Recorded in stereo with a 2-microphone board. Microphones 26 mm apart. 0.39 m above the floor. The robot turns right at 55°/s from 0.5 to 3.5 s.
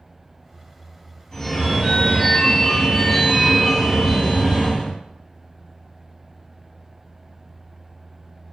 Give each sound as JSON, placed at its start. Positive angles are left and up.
{"t": 1.3, "sound": "a phone ringing", "side_deg": 15, "distance_m": 0.6}